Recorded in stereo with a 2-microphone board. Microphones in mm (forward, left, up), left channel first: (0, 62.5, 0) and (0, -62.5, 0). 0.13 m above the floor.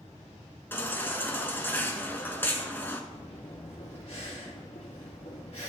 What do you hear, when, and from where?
0.7 s a baby crying: 15° left (ahead or behind), 0.8 m
3.1 s breathing: 50° left (ahead or behind), 2.5 m